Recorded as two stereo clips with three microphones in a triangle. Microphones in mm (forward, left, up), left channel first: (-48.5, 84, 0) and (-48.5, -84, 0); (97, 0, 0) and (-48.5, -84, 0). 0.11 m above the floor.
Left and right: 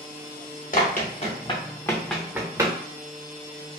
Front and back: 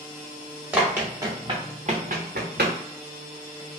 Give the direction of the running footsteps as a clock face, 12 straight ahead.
8 o'clock.